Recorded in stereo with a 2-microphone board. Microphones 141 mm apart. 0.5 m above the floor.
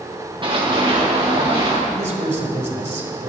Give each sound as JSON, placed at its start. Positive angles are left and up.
{"t": 0.4, "sound": "running footsteps", "side_deg": -35, "distance_m": 3.0}
{"t": 1.9, "sound": "a man speaking", "side_deg": -55, "distance_m": 1.9}